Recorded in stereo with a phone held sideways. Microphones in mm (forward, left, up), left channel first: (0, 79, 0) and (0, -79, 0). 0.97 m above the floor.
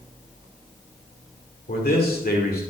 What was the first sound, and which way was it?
A man speaking, 75° left (ahead or behind).